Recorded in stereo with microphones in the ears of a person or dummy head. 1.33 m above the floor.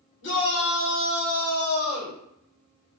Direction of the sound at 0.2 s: 65° left (ahead or behind).